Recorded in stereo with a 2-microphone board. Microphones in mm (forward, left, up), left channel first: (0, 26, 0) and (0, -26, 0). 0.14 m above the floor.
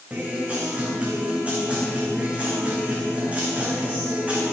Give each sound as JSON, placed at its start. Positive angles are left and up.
{"t": 0.1, "sound": "a guitar", "side_deg": -25, "distance_m": 7.5}